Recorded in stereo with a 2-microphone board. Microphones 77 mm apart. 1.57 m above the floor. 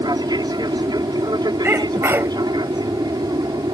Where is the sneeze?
30° right (ahead or behind).